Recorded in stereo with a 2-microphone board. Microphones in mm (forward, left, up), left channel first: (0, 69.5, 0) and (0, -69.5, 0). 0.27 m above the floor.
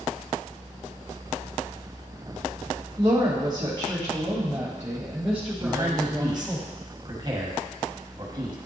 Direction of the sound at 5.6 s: 30° right (ahead or behind).